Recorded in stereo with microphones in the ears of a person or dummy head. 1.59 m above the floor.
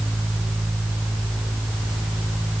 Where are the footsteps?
No footsteps in this recording.